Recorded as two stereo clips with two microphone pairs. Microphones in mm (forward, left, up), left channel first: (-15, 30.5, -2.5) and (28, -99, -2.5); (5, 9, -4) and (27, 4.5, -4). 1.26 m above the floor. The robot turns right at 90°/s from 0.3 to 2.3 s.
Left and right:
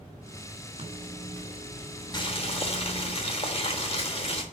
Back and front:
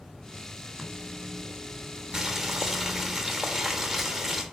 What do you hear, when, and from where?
0.8 s a microwave: 105° right, 2.5 m; by 3.1 s 30° left, 2.5 m
2.1 s boiling: 50° left, 1.4 m; by 4.4 s 65° left, 1.4 m